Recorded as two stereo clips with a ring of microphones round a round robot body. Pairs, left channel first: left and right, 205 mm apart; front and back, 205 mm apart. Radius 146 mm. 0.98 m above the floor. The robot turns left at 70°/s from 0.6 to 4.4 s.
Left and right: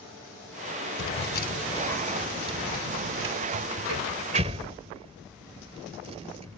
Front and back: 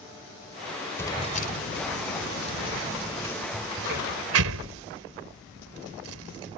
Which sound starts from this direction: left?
Keys jangling, at 1.0 s.